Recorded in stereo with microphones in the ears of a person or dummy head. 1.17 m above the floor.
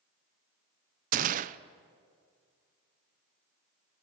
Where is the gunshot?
40° right (ahead or behind), 0.8 m.